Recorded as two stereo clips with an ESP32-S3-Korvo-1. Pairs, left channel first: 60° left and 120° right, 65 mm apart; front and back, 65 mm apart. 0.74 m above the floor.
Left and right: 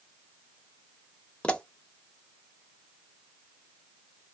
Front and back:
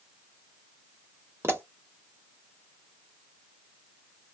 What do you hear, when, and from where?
1.4 s a pop: 135° left, 0.8 m